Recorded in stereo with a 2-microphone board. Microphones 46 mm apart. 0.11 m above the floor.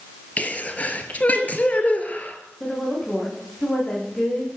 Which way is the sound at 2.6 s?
20° left (ahead or behind).